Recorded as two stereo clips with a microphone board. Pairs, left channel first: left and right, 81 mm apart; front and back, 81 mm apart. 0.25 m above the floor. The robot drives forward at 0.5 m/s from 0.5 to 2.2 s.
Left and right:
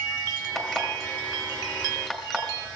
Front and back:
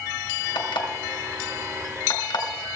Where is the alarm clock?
5° right, 2.5 m.